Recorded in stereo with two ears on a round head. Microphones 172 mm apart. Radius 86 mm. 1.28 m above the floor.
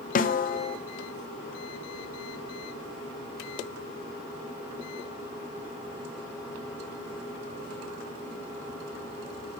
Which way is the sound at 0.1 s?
45° left (ahead or behind).